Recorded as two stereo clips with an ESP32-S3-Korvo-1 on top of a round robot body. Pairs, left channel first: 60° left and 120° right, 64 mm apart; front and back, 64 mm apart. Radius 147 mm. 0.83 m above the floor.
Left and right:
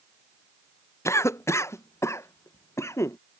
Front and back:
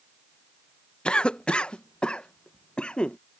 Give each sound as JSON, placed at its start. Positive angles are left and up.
{"t": 1.1, "sound": "a cough", "azimuth_deg": 70}